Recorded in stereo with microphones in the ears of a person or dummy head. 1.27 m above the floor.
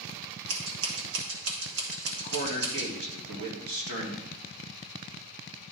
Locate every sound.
0.5 s scissors: 80° right, 1.8 m
2.2 s a man speaking: 75° right (ahead or behind), 2 m